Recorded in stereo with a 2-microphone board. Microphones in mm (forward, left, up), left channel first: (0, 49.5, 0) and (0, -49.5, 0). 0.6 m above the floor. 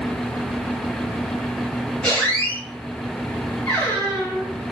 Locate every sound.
2.0 s a squeak: 10° left (ahead or behind), 1.5 m